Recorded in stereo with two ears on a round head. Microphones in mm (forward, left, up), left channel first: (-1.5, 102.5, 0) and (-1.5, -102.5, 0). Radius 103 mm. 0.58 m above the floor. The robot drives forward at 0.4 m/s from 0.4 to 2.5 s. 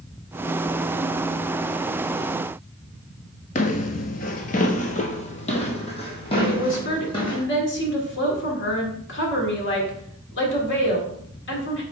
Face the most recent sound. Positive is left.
turn(degrees=55)  # may be behind; listen again after turning